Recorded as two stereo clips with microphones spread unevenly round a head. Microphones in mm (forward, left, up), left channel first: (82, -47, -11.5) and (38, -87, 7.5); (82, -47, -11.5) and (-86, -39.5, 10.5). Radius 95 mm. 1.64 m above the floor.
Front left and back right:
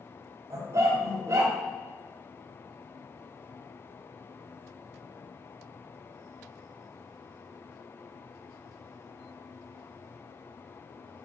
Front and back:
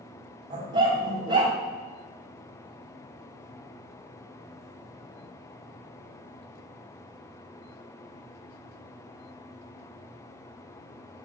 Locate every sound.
0.5 s a dog barking: 125° right, 3.5 m